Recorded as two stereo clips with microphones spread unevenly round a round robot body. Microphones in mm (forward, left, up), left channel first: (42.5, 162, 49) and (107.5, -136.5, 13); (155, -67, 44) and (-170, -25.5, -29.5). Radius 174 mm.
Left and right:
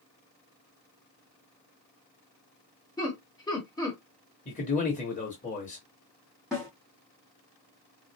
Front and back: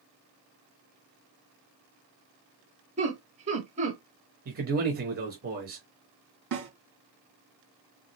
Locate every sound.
3.0 s laughter: straight behind, 1.0 m
4.5 s a man speaking: 165° left, 1.0 m
6.5 s a snare drum: 165° right, 3 m